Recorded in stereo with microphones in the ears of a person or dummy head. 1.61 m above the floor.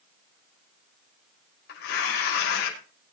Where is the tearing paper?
65° left (ahead or behind), 5.5 m.